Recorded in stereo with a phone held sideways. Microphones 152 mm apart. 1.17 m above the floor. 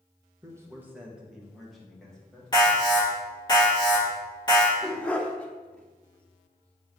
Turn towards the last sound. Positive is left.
turn(degrees=10)  # may be behind; listen again after turning